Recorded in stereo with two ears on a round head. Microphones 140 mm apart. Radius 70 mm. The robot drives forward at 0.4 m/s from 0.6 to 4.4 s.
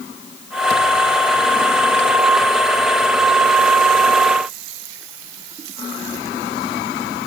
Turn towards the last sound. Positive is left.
No sound to turn to.